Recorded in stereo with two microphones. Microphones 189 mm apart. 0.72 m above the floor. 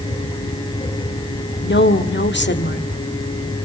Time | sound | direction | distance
1.6 | a woman speaking | 70° left (ahead or behind) | 1.6 m